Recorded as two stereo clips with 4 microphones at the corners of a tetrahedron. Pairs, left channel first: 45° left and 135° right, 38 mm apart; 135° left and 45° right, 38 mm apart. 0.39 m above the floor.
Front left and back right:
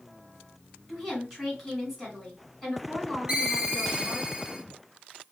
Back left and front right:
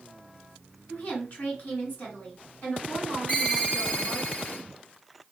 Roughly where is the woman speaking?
Behind left.